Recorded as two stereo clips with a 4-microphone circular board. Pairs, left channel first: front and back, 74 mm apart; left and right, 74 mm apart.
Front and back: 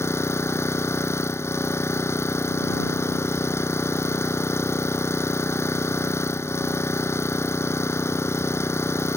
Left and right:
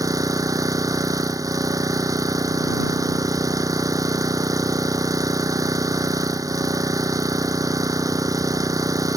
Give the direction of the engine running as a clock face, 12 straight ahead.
2 o'clock.